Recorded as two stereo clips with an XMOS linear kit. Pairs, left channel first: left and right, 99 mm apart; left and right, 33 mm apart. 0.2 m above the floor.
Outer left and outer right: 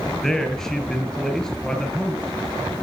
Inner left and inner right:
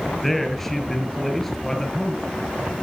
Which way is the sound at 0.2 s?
5° left (ahead or behind).